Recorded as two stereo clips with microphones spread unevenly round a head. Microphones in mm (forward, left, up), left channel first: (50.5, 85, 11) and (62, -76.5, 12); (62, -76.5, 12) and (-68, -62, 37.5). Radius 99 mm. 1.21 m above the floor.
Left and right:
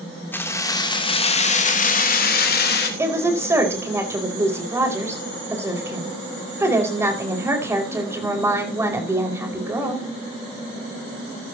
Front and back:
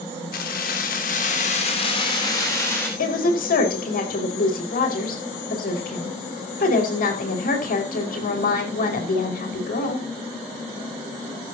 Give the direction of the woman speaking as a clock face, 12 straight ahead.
12 o'clock.